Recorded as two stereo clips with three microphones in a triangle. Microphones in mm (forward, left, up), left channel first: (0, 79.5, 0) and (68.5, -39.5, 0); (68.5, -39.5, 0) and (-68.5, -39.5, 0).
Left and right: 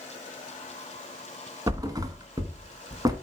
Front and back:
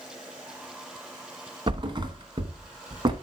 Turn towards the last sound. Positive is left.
turn(degrees=-125)